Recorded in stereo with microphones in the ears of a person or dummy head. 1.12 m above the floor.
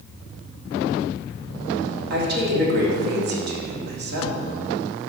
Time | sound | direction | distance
2.1 | a woman speaking | 60° right (ahead or behind) | 1.8 m